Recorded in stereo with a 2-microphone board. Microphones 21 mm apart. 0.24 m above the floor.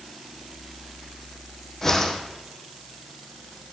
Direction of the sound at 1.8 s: 25° left (ahead or behind).